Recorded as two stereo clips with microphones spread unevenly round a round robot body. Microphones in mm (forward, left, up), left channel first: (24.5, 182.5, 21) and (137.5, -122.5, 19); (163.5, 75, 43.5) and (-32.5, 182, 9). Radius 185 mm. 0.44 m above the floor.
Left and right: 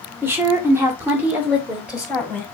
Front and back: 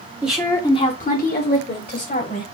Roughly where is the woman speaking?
Behind right.